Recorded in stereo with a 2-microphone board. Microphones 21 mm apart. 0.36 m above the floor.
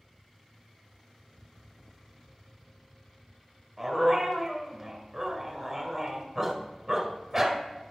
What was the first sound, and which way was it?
A dog barking, 10° right (ahead or behind).